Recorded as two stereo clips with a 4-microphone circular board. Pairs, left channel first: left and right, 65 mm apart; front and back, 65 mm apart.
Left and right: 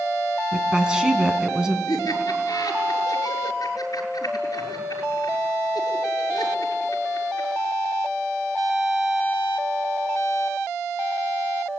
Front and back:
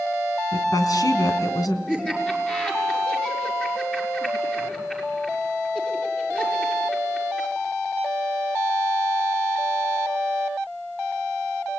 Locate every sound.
0.5 s a woman speaking: 15° right, 3 m
1.9 s laughter: 75° left, 6.5 m